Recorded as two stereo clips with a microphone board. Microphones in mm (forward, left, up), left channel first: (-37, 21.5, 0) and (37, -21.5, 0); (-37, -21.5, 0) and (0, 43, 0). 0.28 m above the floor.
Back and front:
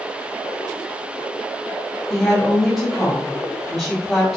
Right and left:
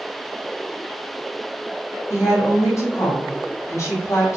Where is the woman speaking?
120° right, 1.2 m.